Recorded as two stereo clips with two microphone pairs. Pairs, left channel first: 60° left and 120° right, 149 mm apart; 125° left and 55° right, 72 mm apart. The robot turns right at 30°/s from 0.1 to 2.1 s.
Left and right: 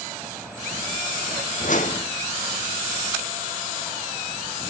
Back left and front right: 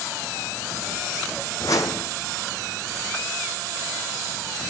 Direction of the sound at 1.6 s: 85° left.